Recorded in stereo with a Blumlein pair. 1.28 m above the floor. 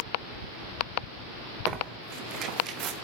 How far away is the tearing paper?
About 0.9 m.